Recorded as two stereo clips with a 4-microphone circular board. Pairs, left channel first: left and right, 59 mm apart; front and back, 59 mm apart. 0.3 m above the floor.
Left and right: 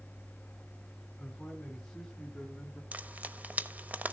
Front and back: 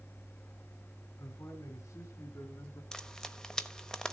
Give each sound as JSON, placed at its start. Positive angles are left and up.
{"t": 1.2, "sound": "a man speaking", "azimuth_deg": 10, "distance_m": 3.0}
{"t": 2.9, "sound": "frying", "azimuth_deg": -70, "distance_m": 0.8}